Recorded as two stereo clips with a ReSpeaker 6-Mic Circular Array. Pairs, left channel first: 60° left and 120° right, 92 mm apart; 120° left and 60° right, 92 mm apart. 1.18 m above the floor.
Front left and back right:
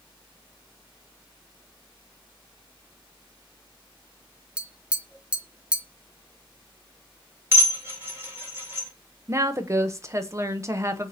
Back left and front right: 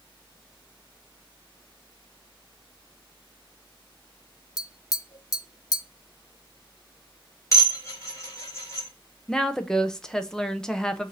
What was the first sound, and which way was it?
Tapping, 160° left.